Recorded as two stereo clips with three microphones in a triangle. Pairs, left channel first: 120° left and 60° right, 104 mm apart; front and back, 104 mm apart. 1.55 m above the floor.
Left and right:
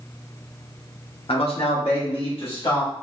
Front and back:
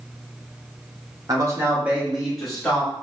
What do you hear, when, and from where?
1.3 s a man speaking: 130° left, 1.0 m; by 2.9 s 80° left, 1.9 m